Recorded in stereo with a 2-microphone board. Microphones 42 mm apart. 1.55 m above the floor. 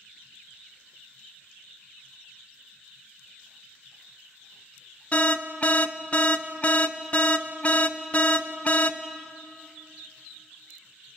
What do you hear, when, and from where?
5.1 s an alarm: 30° left (ahead or behind), 0.8 m